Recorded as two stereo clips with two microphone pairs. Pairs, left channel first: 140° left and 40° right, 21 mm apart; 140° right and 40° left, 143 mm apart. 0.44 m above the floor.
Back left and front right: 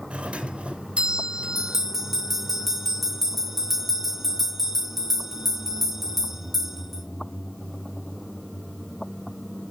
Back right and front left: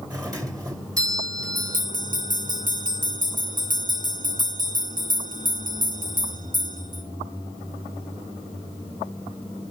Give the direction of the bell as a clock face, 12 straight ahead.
11 o'clock.